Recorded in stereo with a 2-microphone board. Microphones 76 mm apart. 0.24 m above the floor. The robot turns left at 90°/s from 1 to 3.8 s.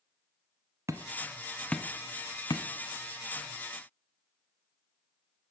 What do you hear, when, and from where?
0.9 s hammering: 45° right (ahead or behind), 1.0 m; by 2.6 s 65° left (ahead or behind), 1.0 m